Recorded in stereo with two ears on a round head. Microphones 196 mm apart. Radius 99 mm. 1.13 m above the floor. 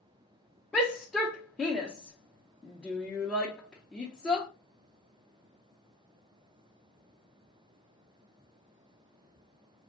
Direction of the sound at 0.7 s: 5° left (ahead or behind).